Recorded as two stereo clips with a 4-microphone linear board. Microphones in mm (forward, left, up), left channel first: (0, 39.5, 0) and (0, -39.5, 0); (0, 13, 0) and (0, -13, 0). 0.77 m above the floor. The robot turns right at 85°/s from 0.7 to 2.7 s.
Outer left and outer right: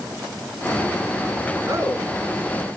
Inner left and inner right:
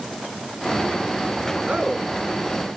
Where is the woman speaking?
60° right, 7 m; by 2.1 s 25° right, 7 m.